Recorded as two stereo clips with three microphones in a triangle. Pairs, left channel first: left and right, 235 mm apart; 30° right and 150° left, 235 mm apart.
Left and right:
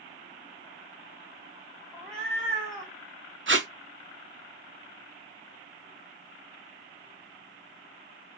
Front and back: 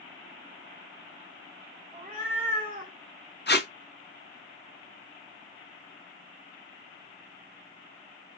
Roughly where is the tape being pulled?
Ahead right.